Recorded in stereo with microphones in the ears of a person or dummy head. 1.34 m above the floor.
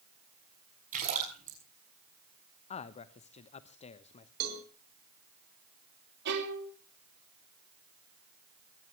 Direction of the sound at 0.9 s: 40° right (ahead or behind).